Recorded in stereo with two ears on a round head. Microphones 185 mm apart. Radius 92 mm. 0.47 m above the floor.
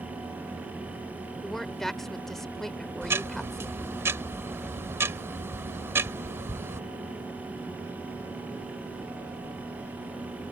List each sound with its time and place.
1.4 s a woman speaking: centre (ahead or behind)
3.0 s ticking: 15° right (ahead or behind)